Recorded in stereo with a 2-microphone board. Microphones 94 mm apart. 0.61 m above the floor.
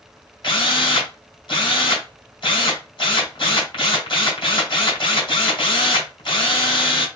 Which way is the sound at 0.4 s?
55° left (ahead or behind).